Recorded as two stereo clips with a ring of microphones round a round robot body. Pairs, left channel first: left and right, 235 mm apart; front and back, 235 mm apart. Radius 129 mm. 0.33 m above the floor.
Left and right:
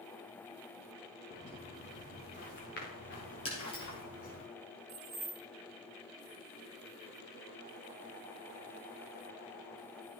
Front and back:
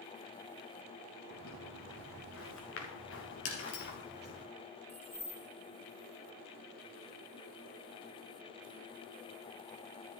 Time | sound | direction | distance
1.3 | footsteps | 25° left | 4 m
3.5 | breaking glass | 20° left | 3.5 m
4.9 | keys jangling | 80° right | 1.3 m